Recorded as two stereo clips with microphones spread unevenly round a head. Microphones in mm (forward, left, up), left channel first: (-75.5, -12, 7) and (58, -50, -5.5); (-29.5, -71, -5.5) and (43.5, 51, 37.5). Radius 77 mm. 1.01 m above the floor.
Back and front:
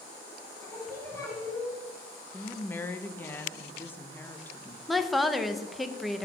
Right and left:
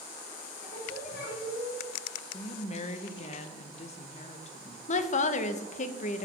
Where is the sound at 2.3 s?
120° right, 0.7 m.